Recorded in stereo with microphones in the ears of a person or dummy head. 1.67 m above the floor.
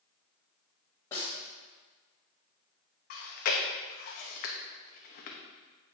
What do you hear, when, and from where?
1.1 s a snare drum: 20° left (ahead or behind), 2 m
3.1 s chewing: 50° left (ahead or behind), 1.0 m